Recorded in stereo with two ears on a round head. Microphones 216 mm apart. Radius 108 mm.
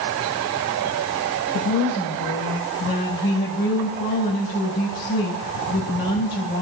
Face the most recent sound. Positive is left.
turn(degrees=40)  # may be behind; listen again after turning